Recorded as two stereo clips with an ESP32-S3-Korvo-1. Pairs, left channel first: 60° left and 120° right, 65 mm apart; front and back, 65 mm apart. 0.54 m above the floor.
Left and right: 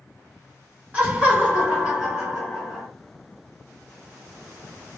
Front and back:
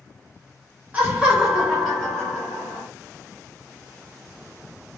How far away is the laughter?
About 1.2 m.